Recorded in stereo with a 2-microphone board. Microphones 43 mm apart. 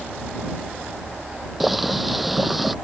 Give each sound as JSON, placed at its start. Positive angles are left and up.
{"t": 1.6, "sound": "boiling", "side_deg": 0}